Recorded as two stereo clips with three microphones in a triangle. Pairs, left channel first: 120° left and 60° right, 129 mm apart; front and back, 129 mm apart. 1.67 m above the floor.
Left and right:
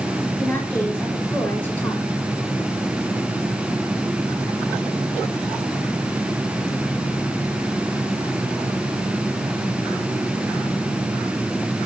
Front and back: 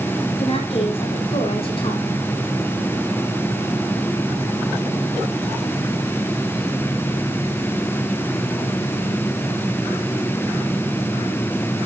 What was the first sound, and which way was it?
A woman speaking, 40° left.